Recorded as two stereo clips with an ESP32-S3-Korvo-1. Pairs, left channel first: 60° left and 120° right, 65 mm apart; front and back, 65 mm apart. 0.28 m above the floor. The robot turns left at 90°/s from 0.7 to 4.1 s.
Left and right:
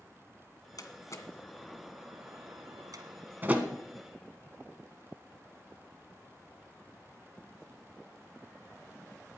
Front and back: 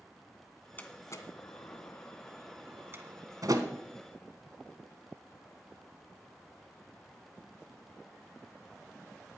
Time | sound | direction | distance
0.8 | a door slam | 60° left | 1.6 m